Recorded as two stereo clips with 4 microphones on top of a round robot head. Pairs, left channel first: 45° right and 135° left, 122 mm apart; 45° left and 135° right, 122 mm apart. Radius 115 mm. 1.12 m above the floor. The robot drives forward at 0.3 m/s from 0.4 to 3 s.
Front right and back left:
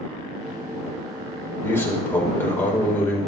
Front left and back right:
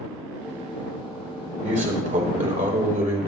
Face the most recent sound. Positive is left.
turn(degrees=-120)